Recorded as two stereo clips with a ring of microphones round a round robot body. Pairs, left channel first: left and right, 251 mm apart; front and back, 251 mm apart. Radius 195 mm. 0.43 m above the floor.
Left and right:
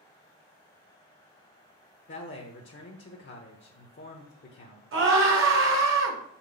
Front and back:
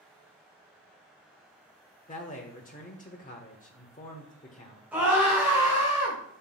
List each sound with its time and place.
2.1 s a man speaking: 55° left, 1.3 m
4.9 s a scream: 95° right, 2.5 m